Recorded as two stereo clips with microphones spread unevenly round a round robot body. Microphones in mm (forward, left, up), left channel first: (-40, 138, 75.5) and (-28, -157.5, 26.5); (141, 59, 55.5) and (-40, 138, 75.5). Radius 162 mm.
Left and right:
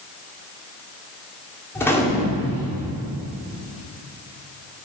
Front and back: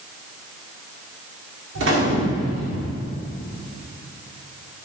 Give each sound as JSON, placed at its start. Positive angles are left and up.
{"t": 1.8, "sound": "a gunshot", "azimuth_deg": 180, "distance_m": 1.9}